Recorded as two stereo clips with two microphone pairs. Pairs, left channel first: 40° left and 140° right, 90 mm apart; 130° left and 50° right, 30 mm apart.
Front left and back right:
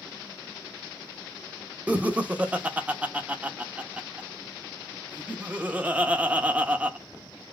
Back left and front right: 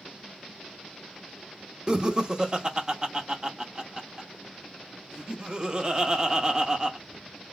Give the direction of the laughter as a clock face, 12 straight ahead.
3 o'clock.